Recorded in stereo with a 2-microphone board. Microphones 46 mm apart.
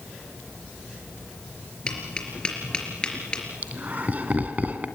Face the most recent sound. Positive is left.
turn(degrees=-35)  # may be behind; listen again after turning